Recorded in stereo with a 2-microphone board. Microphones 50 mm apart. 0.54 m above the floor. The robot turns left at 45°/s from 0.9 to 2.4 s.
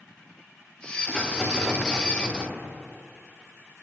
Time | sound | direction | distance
1.1 | a rattle | 20° left | 1.7 m